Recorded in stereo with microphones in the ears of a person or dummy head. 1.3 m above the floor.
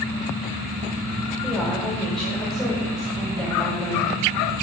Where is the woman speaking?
Centre (ahead or behind), 6 m.